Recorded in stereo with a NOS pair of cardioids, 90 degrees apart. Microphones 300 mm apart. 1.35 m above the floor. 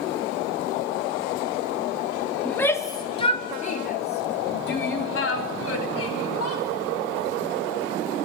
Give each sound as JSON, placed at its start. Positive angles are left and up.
{"t": 2.5, "sound": "a shout", "azimuth_deg": 5, "distance_m": 3.0}